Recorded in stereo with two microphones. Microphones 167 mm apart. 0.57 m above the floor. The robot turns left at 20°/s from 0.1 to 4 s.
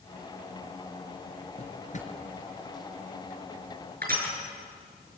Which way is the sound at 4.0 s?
70° right (ahead or behind).